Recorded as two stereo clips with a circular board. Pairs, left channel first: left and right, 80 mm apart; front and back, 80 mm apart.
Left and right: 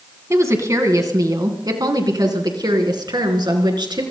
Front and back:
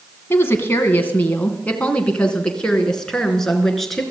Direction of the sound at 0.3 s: 50° right.